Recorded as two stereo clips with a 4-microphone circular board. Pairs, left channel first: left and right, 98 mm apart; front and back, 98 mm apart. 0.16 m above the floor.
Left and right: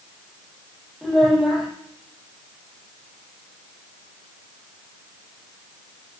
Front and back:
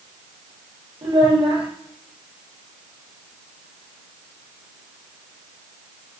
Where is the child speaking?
Straight behind, 3 m.